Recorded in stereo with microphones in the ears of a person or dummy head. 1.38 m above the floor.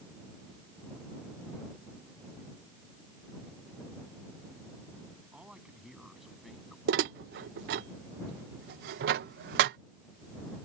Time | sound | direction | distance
5.3 | a man speaking | 5° right (ahead or behind) | ?
6.9 | dishes clattering | 65° right (ahead or behind) | ?